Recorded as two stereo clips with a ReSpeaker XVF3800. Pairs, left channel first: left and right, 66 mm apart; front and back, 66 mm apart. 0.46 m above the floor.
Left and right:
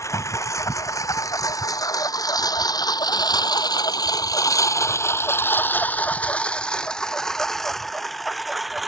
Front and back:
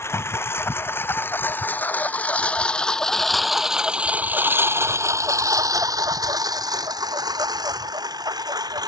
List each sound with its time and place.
0.0 s a lawn mower: 50° left; by 8.9 s 175° right